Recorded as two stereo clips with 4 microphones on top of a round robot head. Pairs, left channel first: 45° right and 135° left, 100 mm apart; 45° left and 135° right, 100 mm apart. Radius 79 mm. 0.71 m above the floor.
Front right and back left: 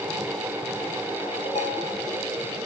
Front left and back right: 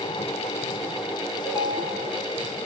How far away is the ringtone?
About 4.5 m.